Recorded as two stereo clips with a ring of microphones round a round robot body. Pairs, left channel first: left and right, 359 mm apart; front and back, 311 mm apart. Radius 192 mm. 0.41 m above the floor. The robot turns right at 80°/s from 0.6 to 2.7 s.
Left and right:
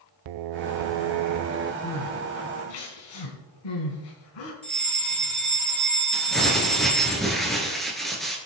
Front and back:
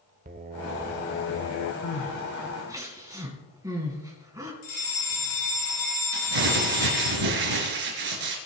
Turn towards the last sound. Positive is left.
turn(degrees=180)